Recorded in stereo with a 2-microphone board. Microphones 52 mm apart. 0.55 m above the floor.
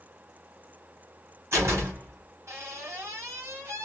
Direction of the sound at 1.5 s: 60° right (ahead or behind).